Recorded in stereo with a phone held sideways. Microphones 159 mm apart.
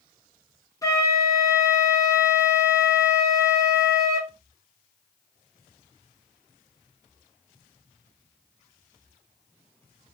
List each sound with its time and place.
0.8 s a flute: 20° left (ahead or behind), 0.6 m